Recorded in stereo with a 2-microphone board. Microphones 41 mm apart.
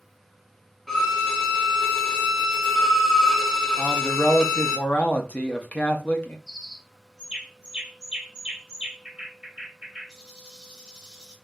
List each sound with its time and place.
0.9 s a violin: 10° left (ahead or behind), 1.0 m
3.8 s a man speaking: 40° left (ahead or behind), 0.7 m
6.5 s a bird: 15° right (ahead or behind), 1.6 m